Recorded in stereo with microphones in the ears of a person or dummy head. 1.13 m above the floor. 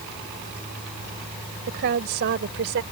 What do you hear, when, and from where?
1.7 s a woman speaking: 60° right (ahead or behind); by 2.8 s 65° right (ahead or behind)